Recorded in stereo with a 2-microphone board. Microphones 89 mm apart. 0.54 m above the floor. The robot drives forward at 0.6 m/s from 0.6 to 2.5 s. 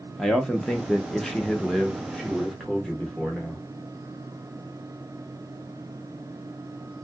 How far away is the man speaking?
About 0.6 m.